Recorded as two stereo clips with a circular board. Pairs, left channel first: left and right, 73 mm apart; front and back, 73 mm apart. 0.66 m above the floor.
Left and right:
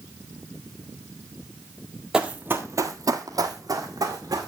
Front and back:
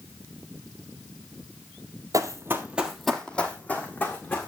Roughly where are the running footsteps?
Behind.